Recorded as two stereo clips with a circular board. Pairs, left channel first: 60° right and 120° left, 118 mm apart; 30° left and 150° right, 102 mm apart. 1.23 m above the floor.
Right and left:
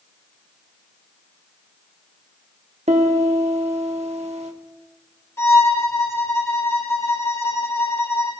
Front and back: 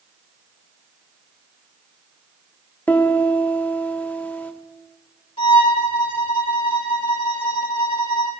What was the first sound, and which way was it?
A piano, 100° left.